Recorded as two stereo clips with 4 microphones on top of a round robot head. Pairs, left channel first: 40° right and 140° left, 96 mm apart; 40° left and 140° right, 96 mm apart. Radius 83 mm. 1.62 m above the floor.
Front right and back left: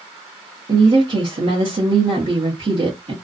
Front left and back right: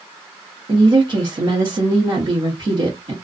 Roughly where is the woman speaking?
Behind.